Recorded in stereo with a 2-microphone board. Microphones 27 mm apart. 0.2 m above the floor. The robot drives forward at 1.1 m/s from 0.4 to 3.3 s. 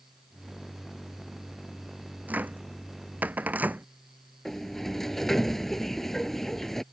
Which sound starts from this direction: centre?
A sliding door, at 4.5 s.